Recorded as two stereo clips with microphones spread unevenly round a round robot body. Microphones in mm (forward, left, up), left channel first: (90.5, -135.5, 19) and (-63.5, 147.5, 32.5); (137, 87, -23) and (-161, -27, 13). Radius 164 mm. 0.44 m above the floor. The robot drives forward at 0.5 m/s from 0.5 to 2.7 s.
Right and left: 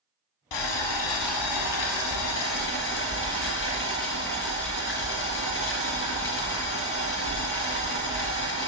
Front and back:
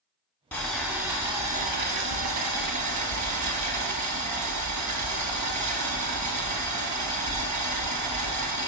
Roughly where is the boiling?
Ahead right.